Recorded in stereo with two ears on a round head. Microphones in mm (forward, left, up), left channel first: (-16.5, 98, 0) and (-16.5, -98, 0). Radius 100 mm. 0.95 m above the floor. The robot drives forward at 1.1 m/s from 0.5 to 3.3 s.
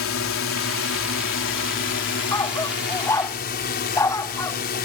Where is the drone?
65° left (ahead or behind); by 4.9 s 50° left (ahead or behind).